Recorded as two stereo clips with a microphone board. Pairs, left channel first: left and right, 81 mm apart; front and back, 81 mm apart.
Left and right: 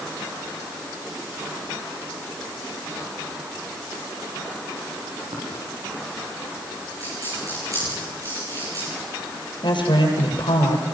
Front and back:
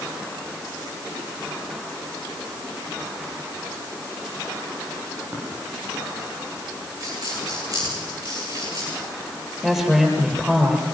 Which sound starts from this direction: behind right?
A dropped coin, at 7.0 s.